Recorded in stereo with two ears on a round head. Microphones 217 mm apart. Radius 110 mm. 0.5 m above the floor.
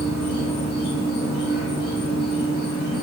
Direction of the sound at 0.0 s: 45° left (ahead or behind).